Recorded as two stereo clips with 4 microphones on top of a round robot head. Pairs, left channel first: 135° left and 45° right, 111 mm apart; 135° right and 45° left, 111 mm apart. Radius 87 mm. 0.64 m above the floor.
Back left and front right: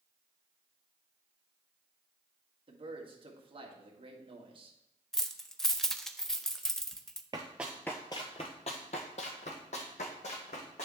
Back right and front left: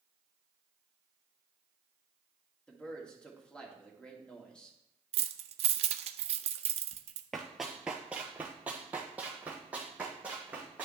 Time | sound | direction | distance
2.7 | a man speaking | 60° right | 1.7 m
5.1 | keys jangling | 50° left | 0.6 m
7.3 | running footsteps | 55° right | 0.6 m